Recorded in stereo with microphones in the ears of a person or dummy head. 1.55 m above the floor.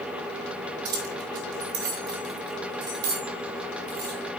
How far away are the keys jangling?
About 3 m.